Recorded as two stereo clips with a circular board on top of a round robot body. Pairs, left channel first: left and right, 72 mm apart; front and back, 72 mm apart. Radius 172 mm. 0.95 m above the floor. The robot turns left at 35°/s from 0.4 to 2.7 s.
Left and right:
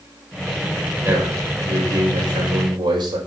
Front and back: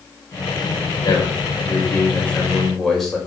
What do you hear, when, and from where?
1.0 s a man speaking: 25° right, 5.5 m; by 3.2 s 85° right, 5.5 m